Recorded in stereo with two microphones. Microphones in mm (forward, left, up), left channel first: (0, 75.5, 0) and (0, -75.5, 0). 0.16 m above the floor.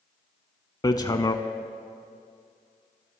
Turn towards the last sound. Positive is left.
turn(degrees=25)  # may be behind; listen again after turning